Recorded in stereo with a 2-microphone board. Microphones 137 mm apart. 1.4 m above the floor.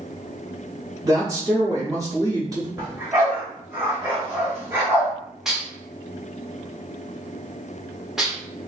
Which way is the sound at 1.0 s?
25° right (ahead or behind).